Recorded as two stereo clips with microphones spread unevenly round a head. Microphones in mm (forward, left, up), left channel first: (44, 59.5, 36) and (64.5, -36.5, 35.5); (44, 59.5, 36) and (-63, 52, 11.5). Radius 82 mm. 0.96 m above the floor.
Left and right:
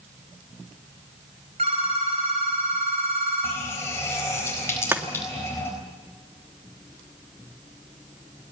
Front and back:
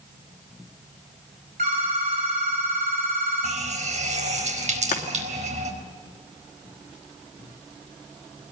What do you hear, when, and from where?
1.6 s a phone ringing: 130° right, 4.5 m
3.4 s a running tap: 175° left, 4 m
4.9 s chopping: 10° right, 2.5 m